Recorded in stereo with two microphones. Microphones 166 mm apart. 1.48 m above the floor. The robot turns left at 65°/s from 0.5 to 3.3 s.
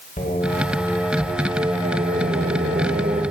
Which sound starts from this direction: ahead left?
Singing, at 0.2 s.